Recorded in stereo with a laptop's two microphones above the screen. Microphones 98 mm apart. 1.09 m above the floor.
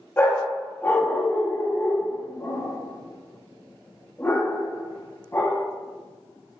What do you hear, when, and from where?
0.2 s a dog barking: 20° left (ahead or behind), 0.5 m